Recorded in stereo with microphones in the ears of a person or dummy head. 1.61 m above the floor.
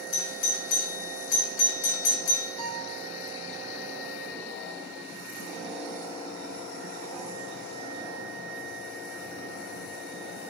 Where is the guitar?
20° right (ahead or behind), 1.2 m.